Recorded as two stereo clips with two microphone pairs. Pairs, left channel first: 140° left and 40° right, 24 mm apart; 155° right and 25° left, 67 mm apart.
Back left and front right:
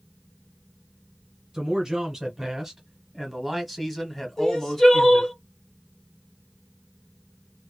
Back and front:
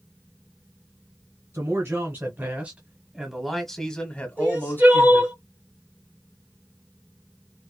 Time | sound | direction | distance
1.5 | a man speaking | 20° left | 1.7 m
4.4 | crying | 80° left | 2 m